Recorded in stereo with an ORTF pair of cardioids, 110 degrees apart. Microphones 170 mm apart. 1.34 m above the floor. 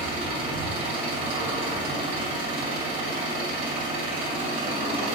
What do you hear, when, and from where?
0.0 s an engine running: 50° right, 2.0 m